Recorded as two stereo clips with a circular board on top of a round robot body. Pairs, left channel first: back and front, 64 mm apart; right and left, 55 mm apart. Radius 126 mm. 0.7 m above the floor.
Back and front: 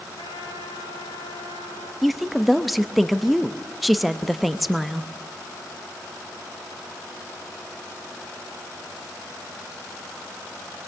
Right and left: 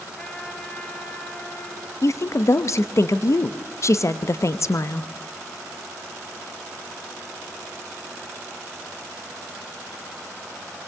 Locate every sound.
0.2 s a trumpet: 165° right, 3.5 m
2.0 s a woman speaking: 90° right, 0.9 m